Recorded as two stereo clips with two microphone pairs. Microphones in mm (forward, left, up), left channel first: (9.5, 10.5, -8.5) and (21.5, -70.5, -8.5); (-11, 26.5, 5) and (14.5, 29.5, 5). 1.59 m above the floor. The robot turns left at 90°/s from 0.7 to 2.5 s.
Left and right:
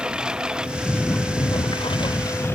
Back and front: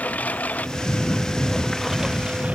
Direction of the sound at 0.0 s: 160° right.